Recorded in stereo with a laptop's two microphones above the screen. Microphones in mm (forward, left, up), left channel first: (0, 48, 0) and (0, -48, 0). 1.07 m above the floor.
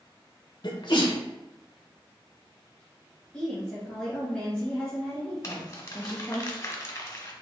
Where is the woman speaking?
10° left (ahead or behind), 1.0 m.